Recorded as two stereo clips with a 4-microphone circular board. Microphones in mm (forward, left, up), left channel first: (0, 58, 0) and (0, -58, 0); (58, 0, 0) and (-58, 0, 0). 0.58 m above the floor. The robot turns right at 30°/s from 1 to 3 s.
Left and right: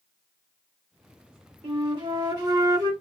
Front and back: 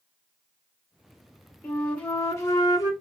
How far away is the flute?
About 1.1 m.